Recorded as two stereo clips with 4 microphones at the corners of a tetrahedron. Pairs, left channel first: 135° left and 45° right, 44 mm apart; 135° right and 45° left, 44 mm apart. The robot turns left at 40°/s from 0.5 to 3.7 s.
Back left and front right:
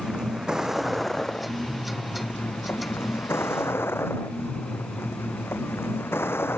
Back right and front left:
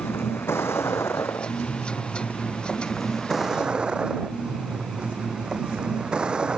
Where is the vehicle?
120° right; by 6.6 s 115° left.